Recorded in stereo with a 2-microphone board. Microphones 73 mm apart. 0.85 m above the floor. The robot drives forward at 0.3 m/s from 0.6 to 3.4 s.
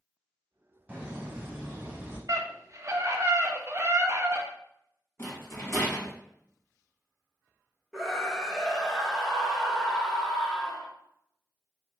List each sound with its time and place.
0.9 s laughter: 15° right (ahead or behind), 1.4 m
2.3 s a scream: 45° right (ahead or behind), 0.6 m; by 4.5 s 35° right (ahead or behind), 0.7 m
5.2 s a rattle: 35° left (ahead or behind), 1.2 m
7.9 s a scream: 5° left (ahead or behind), 0.9 m